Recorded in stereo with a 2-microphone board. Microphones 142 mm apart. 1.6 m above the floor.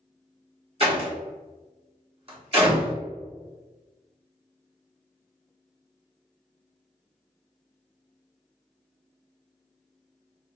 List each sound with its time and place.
0.8 s a door slam: 45° right (ahead or behind), 1.3 m